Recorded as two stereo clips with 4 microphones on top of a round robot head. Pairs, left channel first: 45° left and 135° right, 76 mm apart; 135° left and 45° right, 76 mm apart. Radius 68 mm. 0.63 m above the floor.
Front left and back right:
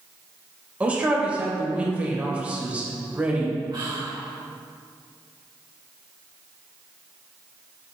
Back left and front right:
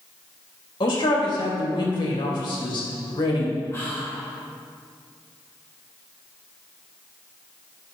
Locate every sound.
0.8 s a man speaking: 155° left, 3 m
3.7 s whispering: 170° right, 3 m